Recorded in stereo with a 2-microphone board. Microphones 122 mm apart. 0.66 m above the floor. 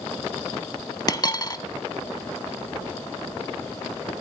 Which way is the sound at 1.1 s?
35° left (ahead or behind).